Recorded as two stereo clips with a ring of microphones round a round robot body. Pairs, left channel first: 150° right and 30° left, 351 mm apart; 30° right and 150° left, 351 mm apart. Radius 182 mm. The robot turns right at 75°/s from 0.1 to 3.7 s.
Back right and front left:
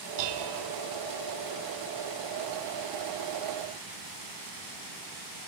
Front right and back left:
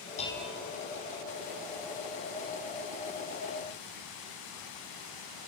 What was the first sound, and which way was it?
Dishes clattering, 40° left.